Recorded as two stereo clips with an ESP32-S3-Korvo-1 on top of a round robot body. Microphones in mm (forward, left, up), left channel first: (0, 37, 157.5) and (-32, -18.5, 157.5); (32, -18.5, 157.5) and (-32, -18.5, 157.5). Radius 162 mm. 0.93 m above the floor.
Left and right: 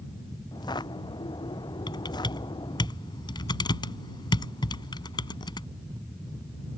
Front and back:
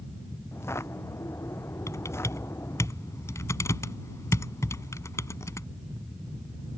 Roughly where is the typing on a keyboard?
Ahead left.